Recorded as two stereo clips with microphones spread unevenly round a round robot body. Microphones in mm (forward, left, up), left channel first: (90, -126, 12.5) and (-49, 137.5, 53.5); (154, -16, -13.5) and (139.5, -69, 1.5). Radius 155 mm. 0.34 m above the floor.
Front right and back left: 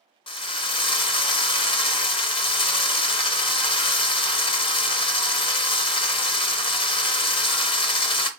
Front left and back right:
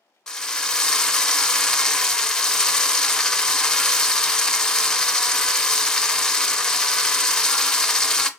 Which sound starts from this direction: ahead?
A drill, at 0.3 s.